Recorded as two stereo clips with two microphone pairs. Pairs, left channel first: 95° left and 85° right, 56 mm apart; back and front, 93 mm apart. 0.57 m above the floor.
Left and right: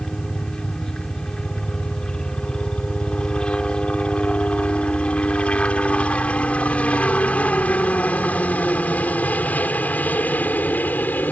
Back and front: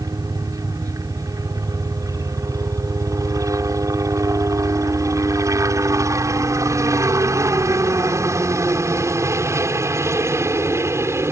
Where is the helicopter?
20° left; by 11.3 s 50° left.